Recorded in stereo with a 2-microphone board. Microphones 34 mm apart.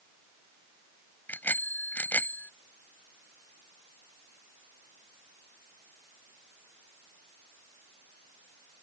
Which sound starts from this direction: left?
A bicycle bell, at 1.3 s.